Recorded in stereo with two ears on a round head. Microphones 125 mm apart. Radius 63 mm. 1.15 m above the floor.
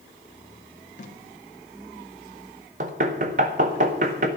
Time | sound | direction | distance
1.0 | tape being pulled | 55° left (ahead or behind) | 1.8 m
2.8 | knocking | 55° right (ahead or behind) | 1.6 m